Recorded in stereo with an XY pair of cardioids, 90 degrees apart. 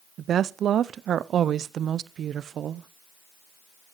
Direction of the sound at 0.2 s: 70° right.